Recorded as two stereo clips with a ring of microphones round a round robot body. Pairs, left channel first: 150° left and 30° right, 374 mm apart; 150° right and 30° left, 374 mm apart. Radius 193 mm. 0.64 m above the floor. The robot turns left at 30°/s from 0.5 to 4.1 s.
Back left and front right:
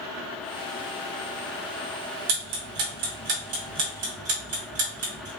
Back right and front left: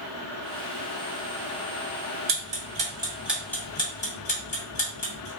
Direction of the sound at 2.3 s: 25° right.